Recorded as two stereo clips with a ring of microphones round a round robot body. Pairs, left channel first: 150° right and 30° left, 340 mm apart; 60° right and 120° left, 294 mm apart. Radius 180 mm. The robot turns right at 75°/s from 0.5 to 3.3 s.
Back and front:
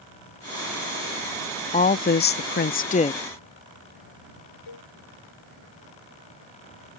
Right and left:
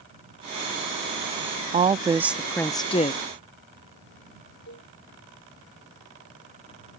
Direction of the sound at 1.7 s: 160° left.